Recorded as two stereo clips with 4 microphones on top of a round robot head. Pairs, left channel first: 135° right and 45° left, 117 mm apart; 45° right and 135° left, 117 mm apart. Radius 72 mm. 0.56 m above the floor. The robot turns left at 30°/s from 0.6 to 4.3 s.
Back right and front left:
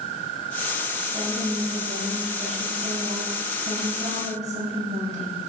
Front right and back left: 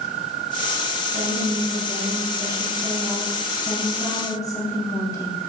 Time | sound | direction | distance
1.1 | a woman speaking | 115° left | 4 m